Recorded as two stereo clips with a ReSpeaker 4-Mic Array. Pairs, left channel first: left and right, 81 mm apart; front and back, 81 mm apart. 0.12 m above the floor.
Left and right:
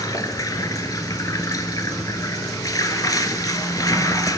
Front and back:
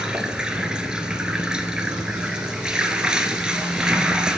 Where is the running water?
105° left, 0.7 m.